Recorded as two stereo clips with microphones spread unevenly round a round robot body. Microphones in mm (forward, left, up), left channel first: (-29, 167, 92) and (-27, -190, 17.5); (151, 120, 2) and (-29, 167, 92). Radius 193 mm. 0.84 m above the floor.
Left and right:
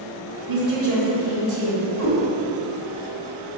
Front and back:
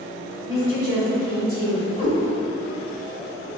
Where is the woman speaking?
110° right, 2.0 m.